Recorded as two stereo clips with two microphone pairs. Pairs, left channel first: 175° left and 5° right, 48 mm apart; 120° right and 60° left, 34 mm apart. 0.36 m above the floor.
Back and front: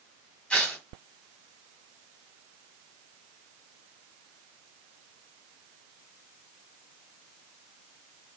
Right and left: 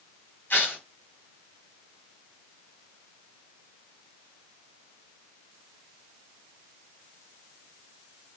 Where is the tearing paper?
125° right, 1.7 m.